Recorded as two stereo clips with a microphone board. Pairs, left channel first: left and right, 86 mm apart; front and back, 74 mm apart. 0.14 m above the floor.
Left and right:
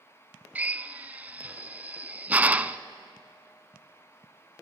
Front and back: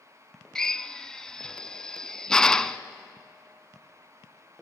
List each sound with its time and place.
0.6 s a drill: 65° right, 0.6 m